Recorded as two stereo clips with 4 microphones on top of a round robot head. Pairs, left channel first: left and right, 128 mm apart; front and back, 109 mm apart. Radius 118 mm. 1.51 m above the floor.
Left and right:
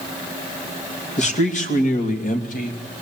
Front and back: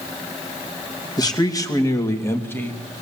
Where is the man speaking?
55° left, 3 m; by 3.0 s 80° left, 3 m.